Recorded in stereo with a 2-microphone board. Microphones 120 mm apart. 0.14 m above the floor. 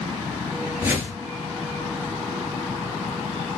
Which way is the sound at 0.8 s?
20° right (ahead or behind).